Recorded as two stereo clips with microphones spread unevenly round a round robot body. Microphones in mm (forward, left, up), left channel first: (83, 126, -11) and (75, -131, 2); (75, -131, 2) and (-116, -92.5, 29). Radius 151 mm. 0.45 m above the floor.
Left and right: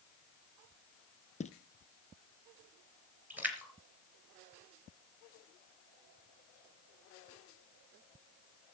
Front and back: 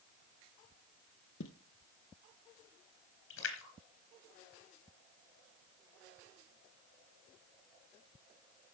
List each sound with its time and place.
1.4 s footsteps: 25° left, 0.8 m
3.3 s a splash: 10° right, 3.5 m